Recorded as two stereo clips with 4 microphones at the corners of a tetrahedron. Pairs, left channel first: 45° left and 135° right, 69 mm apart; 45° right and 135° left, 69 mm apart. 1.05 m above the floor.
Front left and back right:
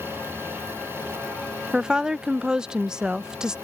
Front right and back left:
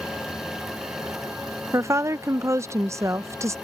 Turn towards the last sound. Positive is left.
turn(degrees=150)